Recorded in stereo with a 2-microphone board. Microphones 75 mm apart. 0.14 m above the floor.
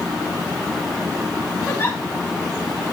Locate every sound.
1.7 s a giggle: 25° left (ahead or behind), 5.5 m